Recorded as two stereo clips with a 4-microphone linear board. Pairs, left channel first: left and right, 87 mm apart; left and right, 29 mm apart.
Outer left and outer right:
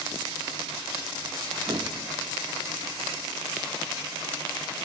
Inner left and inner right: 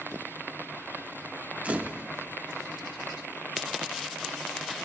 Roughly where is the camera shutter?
Right.